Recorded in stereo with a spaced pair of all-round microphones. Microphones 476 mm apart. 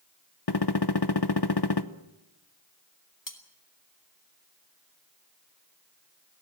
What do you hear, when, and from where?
0.5 s a gunshot: 55° left (ahead or behind), 0.9 m
3.3 s cutlery clinking: 40° left (ahead or behind), 2 m